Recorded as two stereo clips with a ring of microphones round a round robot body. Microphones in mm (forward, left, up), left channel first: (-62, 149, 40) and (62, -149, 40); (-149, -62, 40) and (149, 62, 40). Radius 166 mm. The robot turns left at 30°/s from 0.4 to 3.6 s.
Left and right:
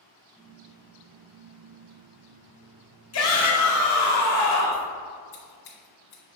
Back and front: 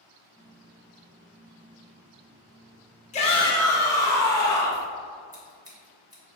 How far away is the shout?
About 1.3 m.